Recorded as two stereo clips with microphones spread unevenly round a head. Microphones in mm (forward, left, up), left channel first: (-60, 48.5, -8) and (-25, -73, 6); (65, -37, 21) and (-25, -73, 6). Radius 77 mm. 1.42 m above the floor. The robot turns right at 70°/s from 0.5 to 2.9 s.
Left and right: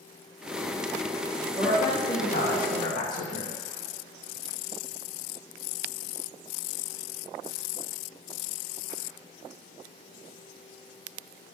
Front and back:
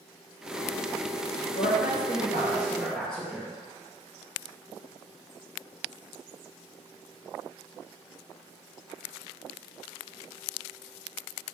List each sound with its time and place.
1.6 s a woman speaking: 15° left, 1.3 m; by 3.6 s 110° left, 1.3 m